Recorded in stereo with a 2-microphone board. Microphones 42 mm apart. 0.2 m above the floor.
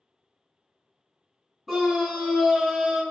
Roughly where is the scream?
Centre.